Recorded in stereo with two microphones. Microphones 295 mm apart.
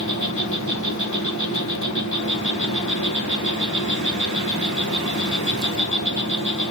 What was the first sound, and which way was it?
An insect, 60° left (ahead or behind).